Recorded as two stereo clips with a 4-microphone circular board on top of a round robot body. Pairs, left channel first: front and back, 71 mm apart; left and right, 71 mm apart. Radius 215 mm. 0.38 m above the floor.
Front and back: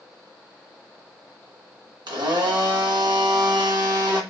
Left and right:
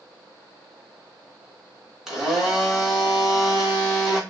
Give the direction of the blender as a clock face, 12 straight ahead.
6 o'clock.